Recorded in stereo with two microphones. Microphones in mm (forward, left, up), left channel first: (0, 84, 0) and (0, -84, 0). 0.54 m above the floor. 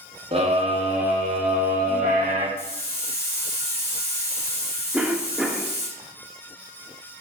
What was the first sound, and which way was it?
A scream, 35° right (ahead or behind).